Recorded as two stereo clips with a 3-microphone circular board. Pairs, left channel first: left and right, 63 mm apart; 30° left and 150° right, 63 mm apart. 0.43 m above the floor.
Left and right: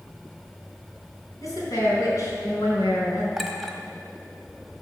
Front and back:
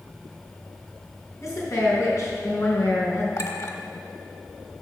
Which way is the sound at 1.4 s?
65° left.